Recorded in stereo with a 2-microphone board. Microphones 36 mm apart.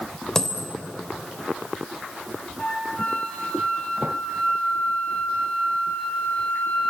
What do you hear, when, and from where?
0.3 s a dropped coin: 15° left (ahead or behind), 3 m
2.6 s a flute: 35° left (ahead or behind), 6 m